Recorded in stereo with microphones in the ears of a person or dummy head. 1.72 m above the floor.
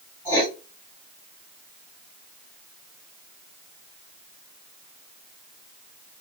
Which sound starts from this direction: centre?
Writing, at 0.2 s.